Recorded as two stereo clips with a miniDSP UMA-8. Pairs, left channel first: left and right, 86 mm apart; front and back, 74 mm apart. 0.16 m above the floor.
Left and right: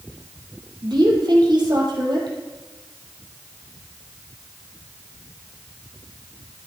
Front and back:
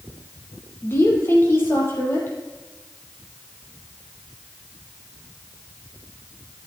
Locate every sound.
0.8 s a woman speaking: 55° right, 4 m